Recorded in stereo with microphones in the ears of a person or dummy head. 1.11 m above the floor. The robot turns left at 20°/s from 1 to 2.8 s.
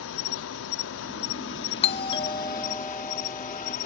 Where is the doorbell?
30° left (ahead or behind); by 3.8 s 10° left (ahead or behind).